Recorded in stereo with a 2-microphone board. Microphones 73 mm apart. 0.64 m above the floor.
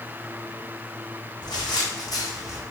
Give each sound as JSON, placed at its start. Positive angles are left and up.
{"t": 1.4, "sound": "footsteps", "side_deg": 70, "distance_m": 2.5}